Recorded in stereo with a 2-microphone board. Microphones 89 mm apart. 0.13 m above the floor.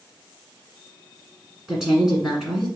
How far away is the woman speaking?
About 1.5 m.